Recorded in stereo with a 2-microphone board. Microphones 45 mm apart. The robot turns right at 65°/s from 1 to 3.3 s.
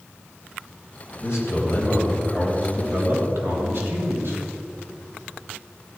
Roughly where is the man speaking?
Left.